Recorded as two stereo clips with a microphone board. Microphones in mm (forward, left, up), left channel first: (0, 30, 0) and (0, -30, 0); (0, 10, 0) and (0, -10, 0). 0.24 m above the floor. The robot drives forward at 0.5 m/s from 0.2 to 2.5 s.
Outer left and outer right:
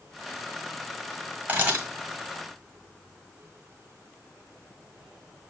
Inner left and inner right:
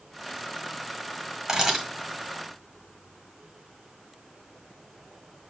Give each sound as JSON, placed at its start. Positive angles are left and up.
{"t": 1.5, "sound": "a camera shutter", "side_deg": -25, "distance_m": 1.8}